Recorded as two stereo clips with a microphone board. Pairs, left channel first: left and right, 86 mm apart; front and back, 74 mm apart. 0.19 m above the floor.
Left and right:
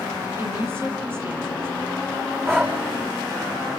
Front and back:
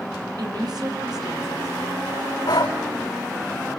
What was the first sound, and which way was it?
A woman speaking, 150° right.